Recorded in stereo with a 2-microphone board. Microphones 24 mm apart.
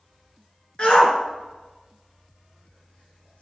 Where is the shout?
45° left (ahead or behind), 2 m; by 3.4 s 65° left (ahead or behind), 3.5 m.